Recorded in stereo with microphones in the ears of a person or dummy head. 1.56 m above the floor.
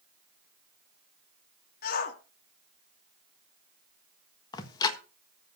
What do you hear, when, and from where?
1.8 s a shout: 55° left (ahead or behind), 2.5 m
4.5 s ticking: 25° left (ahead or behind), 1.5 m